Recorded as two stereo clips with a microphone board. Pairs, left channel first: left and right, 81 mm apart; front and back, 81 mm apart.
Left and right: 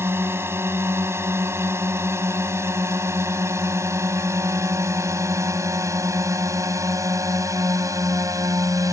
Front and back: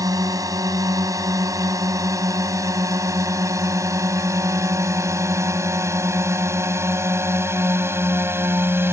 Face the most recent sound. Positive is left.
turn(degrees=-125)